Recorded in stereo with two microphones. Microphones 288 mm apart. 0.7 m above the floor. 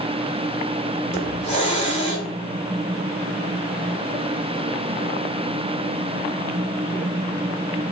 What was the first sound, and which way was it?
A hiss, 25° left (ahead or behind).